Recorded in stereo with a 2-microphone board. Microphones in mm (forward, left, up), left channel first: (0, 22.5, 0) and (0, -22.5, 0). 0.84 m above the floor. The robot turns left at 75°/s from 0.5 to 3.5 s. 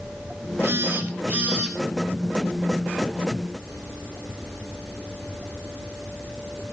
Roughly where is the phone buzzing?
Right.